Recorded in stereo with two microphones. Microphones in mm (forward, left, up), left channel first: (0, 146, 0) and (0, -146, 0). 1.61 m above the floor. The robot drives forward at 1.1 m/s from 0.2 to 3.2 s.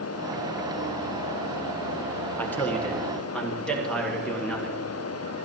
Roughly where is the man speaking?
Centre.